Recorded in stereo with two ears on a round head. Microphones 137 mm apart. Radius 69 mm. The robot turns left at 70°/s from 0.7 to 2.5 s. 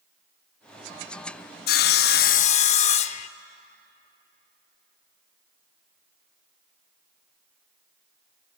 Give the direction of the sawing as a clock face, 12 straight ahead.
9 o'clock.